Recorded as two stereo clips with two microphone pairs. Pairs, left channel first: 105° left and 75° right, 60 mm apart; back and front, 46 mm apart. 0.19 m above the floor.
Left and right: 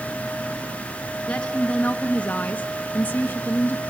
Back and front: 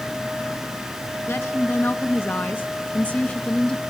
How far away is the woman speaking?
About 2.5 m.